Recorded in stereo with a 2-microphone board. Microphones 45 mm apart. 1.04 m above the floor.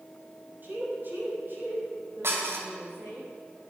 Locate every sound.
0.6 s a woman speaking: 45° right (ahead or behind), 6.5 m; by 3.2 s 55° right (ahead or behind), 10 m
2.2 s dishes clattering: 65° right (ahead or behind), 3 m